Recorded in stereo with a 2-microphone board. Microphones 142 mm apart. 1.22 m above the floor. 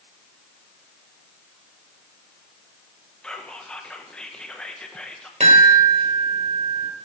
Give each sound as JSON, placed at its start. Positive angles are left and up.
{"t": 3.2, "sound": "whispering", "side_deg": 5, "distance_m": 1.2}
{"t": 5.4, "sound": "a chime", "side_deg": -55, "distance_m": 3.0}